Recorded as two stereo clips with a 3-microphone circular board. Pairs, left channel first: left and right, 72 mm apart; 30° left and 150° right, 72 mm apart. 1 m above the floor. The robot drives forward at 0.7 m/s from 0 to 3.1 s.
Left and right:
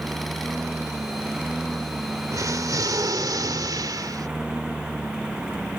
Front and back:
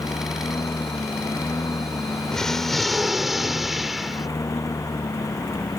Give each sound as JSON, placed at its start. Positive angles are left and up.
{"t": 0.0, "sound": "a lawn mower", "azimuth_deg": -10}
{"t": 2.3, "sound": "an explosion", "azimuth_deg": -50}